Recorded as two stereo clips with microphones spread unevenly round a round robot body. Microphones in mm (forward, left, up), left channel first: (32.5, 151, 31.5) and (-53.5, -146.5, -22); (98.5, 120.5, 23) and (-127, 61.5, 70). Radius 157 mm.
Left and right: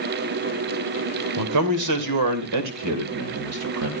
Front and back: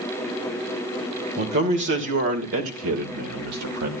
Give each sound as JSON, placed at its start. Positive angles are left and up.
{"t": 1.4, "sound": "a man speaking", "azimuth_deg": -110, "distance_m": 2.5}